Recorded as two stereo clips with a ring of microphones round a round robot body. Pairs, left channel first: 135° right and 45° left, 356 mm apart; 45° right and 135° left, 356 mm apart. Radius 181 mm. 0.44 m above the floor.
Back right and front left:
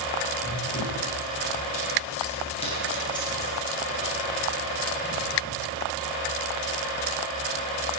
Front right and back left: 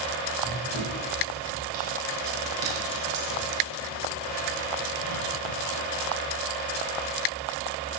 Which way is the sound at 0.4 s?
165° left.